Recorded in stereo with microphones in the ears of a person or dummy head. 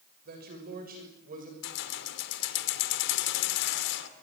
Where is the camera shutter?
I don't hear a camera shutter.